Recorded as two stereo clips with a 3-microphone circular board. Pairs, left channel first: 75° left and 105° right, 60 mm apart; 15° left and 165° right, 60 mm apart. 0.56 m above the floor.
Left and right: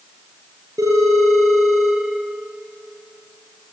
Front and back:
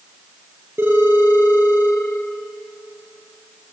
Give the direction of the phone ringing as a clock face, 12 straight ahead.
4 o'clock.